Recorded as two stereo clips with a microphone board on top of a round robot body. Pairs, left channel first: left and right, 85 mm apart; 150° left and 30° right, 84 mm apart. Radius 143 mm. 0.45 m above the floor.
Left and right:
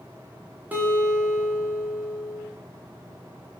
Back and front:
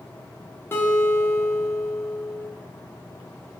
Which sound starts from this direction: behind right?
A guitar, at 0.7 s.